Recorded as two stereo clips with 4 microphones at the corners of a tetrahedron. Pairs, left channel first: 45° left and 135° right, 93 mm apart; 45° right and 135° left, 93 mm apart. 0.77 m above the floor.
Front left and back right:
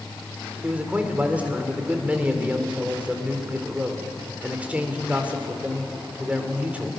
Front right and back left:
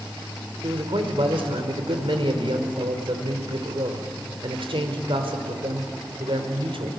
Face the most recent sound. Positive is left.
turn(degrees=150)